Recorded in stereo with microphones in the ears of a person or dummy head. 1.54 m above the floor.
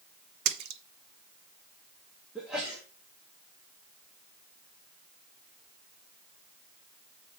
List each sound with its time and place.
0.5 s a splash: 60° right (ahead or behind), 0.9 m
2.4 s a sneeze: centre (ahead or behind), 2.0 m